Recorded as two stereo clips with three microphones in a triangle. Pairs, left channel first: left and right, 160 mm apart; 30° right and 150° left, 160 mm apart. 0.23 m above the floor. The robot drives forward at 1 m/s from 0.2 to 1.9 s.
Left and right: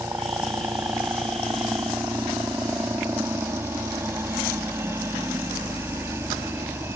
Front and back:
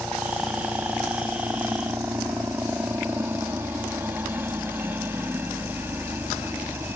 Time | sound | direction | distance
0.0 | a helicopter | 140° right | ?